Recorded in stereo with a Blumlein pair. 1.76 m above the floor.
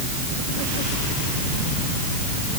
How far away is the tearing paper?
I don't hear tearing paper.